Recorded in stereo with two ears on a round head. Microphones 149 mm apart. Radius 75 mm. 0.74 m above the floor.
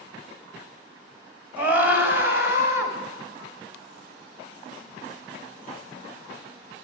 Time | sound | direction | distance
1.6 | a scream | 10° right (ahead or behind) | 4 m